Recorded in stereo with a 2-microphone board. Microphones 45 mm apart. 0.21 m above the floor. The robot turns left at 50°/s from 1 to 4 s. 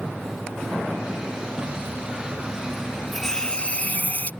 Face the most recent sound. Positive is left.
turn(degrees=130)